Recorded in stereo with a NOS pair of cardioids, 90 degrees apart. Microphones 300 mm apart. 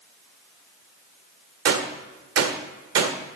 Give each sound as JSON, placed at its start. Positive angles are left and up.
{"t": 1.6, "sound": "a gunshot", "azimuth_deg": -55, "distance_m": 1.5}